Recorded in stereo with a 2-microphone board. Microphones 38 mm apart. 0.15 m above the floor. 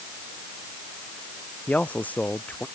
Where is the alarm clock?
I don't hear an alarm clock.